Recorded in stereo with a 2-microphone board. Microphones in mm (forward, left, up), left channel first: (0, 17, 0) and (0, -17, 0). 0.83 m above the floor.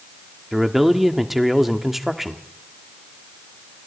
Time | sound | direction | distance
0.5 | a man speaking | 5° right (ahead or behind) | 1.5 m